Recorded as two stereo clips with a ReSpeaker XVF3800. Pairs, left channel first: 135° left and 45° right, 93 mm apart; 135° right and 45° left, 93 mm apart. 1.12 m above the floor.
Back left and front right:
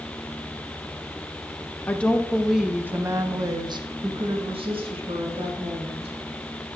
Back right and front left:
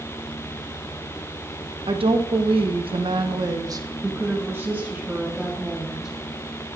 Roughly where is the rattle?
No rattle in this recording.